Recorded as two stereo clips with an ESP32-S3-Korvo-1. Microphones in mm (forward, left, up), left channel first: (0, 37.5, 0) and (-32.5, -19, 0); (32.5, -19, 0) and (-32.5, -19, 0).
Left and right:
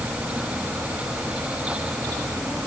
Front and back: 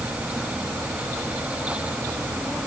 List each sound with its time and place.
Only background noise.